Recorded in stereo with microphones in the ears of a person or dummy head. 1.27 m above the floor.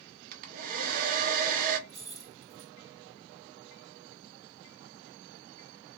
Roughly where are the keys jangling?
Centre.